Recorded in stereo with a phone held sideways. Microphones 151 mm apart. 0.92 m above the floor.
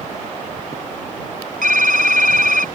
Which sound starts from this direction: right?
Typing on a keyboard, at 1.6 s.